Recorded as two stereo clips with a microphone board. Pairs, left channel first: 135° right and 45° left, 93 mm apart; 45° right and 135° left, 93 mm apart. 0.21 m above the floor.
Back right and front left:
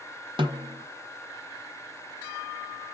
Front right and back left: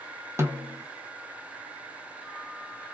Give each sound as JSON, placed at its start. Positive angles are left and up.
{"t": 0.4, "sound": "a snare drum", "azimuth_deg": 75, "distance_m": 1.2}